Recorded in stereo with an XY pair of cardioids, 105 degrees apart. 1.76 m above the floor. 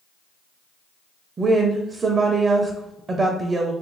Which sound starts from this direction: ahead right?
A woman speaking, at 1.4 s.